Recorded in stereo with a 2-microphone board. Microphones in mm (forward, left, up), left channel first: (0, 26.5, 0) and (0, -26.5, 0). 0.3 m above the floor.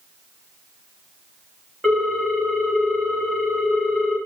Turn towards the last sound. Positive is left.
turn(degrees=5)  # may be behind; listen again after turning